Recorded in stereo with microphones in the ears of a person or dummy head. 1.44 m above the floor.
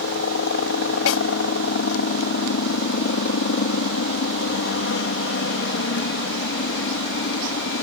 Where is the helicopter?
60° left (ahead or behind).